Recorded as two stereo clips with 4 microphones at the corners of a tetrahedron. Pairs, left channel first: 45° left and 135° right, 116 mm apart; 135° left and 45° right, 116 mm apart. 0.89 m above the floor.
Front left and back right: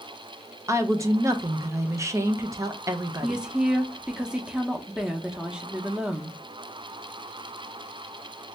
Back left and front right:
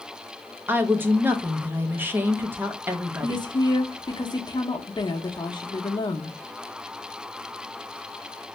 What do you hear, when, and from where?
0.7 s a woman speaking: 100° right, 0.6 m
3.2 s a woman speaking: 145° left, 0.8 m